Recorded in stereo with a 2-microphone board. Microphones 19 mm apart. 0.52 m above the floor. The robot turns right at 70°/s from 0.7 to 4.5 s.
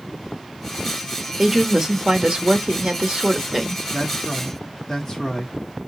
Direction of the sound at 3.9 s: 15° right.